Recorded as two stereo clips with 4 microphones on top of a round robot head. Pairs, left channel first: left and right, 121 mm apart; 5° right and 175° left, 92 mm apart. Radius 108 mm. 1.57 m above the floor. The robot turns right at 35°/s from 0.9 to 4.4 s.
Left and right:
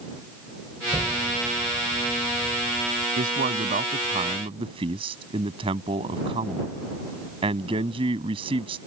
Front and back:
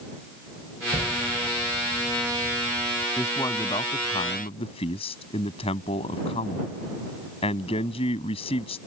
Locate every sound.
0.9 s an explosion: 160° right; by 3.1 s 85° right
3.2 s a man speaking: 80° right; by 8.8 s 35° right